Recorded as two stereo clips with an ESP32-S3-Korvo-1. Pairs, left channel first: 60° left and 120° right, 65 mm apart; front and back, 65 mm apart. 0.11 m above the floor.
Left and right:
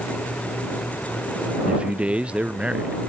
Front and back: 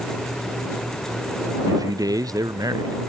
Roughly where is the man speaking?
Behind.